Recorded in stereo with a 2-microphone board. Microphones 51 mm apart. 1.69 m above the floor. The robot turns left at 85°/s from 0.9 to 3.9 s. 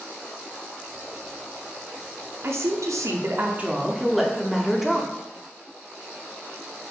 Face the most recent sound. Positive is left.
turn(degrees=-175)